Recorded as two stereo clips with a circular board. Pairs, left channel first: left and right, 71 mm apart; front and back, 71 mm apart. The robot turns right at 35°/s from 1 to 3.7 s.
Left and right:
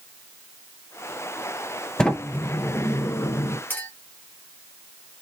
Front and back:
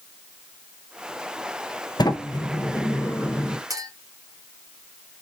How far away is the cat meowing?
I don't hear a cat meowing.